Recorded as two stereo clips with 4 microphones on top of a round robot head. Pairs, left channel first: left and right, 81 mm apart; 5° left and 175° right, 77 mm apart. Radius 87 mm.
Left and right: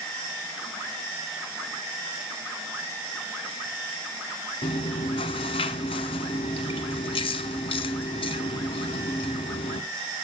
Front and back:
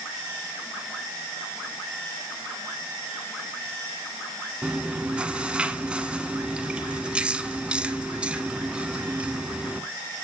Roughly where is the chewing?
Left.